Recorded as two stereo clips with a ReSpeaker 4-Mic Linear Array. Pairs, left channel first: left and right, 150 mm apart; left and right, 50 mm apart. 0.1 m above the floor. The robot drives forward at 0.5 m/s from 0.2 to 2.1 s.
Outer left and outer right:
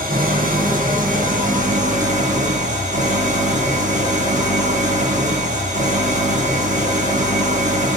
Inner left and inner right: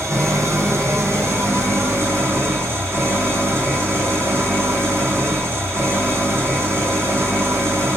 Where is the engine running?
70° right (ahead or behind), 2.5 m; by 8.0 s 55° right (ahead or behind), 2.5 m.